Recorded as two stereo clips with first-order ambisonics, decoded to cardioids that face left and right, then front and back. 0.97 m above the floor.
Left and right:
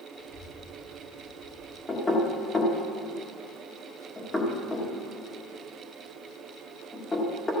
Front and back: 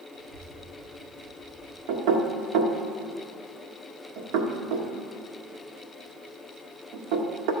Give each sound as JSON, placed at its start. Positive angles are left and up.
{"t": 0.1, "sound": "a child speaking", "azimuth_deg": 135, "distance_m": 5.0}
{"t": 1.9, "sound": "knocking", "azimuth_deg": 170, "distance_m": 1.5}